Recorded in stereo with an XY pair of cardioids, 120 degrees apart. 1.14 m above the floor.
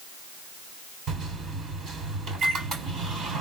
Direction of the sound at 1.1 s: 55° right.